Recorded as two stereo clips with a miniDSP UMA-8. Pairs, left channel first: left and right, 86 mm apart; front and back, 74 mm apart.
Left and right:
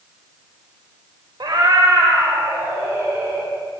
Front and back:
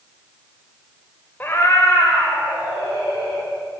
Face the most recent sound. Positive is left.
turn(degrees=-25)